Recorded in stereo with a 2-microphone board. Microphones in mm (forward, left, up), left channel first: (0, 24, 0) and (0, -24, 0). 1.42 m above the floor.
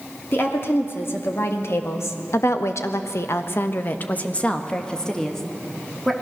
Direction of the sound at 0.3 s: 50° left (ahead or behind).